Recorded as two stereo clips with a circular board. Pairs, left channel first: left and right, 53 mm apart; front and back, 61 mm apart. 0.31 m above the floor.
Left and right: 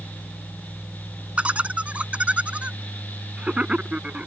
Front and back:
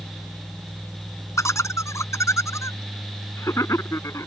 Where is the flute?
I don't hear a flute.